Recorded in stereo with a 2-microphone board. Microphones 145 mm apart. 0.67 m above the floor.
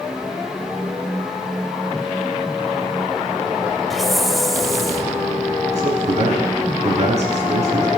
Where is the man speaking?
55° right (ahead or behind), 6.5 m.